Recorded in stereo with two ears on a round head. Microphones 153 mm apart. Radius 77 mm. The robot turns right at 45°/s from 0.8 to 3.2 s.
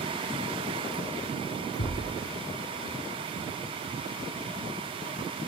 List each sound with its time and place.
1.8 s a thud: 60° left (ahead or behind), 4 m; by 2.2 s 80° left, 4 m